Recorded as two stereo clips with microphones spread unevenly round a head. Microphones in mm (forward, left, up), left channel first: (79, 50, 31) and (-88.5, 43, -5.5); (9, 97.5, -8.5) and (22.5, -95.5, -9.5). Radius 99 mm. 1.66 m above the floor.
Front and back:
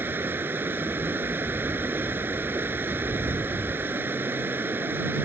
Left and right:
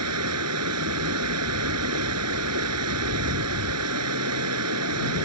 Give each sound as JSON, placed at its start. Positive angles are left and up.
{"t": 0.0, "sound": "running water", "azimuth_deg": -95}